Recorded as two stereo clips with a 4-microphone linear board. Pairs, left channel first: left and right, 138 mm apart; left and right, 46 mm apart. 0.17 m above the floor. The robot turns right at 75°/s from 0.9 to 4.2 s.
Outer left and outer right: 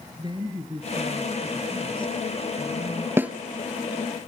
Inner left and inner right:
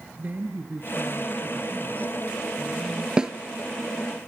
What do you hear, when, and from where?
0.2 s a woman speaking: 40° right, 2.5 m; by 3.1 s 120° left, 2.5 m
3.2 s a snare drum: 15° right (ahead or behind), 1.1 m; by 3.3 s 5° right (ahead or behind), 1.1 m